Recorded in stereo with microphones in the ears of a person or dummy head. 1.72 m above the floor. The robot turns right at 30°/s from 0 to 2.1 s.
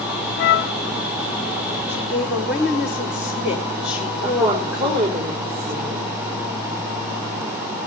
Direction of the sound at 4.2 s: 55° right (ahead or behind).